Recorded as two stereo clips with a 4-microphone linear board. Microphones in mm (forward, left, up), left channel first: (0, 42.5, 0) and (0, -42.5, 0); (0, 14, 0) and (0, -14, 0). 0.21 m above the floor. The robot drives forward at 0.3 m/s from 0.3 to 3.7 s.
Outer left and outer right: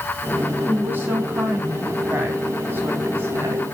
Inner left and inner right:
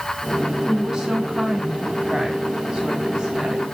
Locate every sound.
0.7 s a woman speaking: 25° right (ahead or behind), 1.9 m; by 3.6 s 30° right (ahead or behind), 1.7 m